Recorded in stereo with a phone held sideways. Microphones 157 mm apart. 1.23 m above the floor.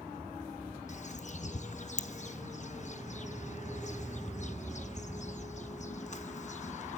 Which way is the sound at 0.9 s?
50° left (ahead or behind).